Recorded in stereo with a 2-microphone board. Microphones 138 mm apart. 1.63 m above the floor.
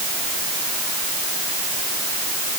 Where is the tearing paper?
I don't hear tearing paper.